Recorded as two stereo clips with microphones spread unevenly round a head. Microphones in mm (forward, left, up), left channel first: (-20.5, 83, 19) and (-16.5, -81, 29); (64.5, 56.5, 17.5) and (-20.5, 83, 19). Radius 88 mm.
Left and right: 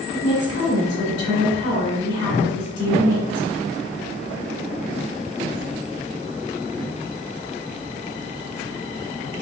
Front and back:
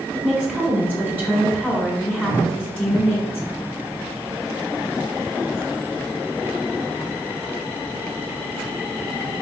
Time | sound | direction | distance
0.1 | a woman speaking | 60° left | 1.6 m